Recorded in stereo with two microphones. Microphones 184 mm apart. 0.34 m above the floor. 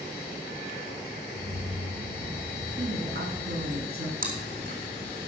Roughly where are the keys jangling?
Right.